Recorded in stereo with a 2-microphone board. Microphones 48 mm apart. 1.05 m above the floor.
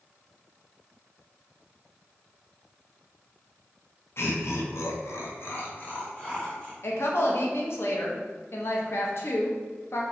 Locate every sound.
4.2 s laughter: 55° left (ahead or behind), 0.7 m; by 6.7 s 20° left (ahead or behind), 1.1 m
6.8 s a woman speaking: 55° left (ahead or behind), 0.7 m